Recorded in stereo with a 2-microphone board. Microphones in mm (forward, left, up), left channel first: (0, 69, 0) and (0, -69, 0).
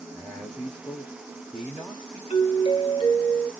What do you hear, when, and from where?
0.1 s a man speaking: 5° left (ahead or behind), 0.6 m
2.3 s a doorbell: 40° left (ahead or behind), 0.8 m